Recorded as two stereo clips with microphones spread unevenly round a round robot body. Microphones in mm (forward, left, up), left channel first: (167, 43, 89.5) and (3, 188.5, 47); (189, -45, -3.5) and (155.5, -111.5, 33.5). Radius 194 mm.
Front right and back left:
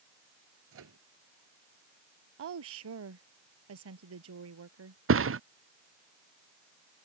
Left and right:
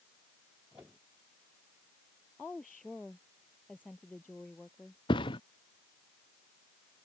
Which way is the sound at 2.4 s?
155° left.